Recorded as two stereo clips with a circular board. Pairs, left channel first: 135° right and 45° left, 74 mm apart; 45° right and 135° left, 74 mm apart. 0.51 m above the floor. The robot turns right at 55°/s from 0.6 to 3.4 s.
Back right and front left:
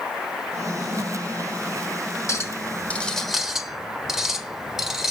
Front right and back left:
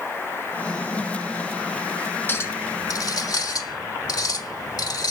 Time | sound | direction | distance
2.3 | a clink | 100° right | 1.2 m